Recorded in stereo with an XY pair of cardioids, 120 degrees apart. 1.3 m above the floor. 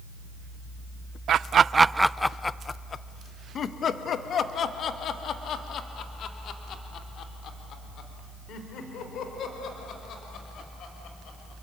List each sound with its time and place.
1.3 s laughter: 55° right, 0.6 m; by 11.5 s 60° left, 6 m